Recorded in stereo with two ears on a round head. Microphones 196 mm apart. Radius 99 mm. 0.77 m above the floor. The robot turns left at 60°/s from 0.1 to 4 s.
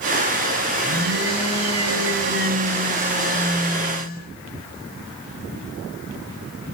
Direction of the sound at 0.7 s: 25° right.